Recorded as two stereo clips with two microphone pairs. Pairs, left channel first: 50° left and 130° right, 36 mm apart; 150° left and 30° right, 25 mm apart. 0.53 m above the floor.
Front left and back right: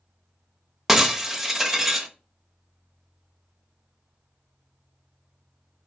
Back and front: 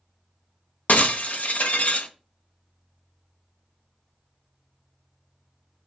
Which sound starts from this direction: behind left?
Breaking glass, at 0.9 s.